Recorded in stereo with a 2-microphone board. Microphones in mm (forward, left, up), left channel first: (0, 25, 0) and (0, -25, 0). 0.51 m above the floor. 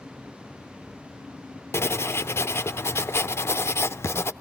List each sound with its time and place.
1.7 s writing: 55° left (ahead or behind), 0.7 m